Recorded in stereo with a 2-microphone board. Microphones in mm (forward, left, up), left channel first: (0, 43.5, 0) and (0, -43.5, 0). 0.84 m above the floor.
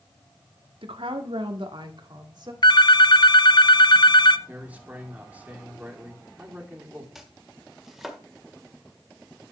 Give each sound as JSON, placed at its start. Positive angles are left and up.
{"t": 0.8, "sound": "a woman speaking", "side_deg": -75, "distance_m": 1.4}
{"t": 2.6, "sound": "a phone ringing", "side_deg": 55, "distance_m": 0.5}
{"t": 4.5, "sound": "a man speaking", "side_deg": -15, "distance_m": 2.0}
{"t": 7.2, "sound": "chopping", "side_deg": -5, "distance_m": 1.7}